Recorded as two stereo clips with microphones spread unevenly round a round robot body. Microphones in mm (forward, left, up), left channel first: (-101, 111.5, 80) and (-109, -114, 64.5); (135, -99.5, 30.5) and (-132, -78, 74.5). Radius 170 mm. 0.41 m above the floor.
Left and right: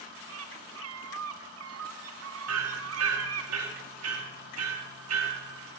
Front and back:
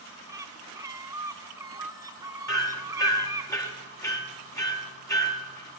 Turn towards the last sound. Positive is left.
turn(degrees=-80)